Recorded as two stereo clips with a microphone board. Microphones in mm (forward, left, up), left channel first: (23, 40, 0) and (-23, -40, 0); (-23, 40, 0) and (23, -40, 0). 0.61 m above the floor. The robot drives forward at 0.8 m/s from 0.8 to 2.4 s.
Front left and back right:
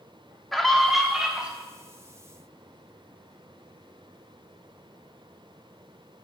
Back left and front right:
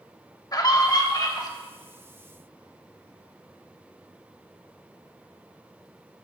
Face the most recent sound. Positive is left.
turn(degrees=170)